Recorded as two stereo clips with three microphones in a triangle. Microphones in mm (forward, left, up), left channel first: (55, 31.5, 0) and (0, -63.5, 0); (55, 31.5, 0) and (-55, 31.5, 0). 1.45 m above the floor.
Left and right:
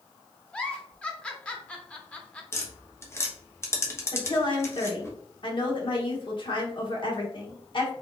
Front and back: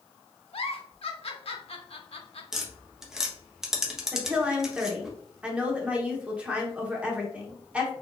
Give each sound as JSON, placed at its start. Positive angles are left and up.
{"t": 0.5, "sound": "a giggle", "azimuth_deg": -20, "distance_m": 0.6}
{"t": 2.5, "sound": "tapping", "azimuth_deg": 100, "distance_m": 0.8}
{"t": 4.1, "sound": "a woman speaking", "azimuth_deg": 100, "distance_m": 1.0}